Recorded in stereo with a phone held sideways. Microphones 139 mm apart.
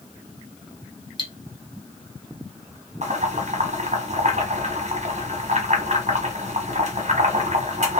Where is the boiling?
55° right (ahead or behind), 1.2 m.